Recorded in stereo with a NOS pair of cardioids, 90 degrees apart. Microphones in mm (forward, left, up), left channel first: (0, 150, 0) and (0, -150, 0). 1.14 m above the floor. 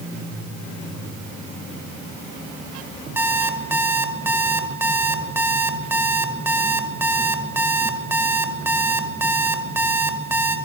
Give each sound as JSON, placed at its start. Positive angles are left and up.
{"t": 3.2, "sound": "an alarm clock", "azimuth_deg": -5, "distance_m": 2.5}